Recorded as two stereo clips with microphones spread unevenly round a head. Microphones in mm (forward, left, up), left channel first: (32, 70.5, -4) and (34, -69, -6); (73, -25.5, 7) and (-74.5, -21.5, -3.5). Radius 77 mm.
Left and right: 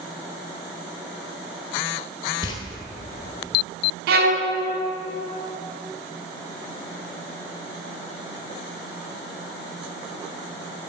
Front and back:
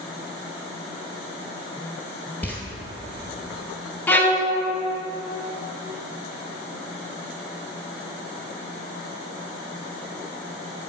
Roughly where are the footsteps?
Ahead left.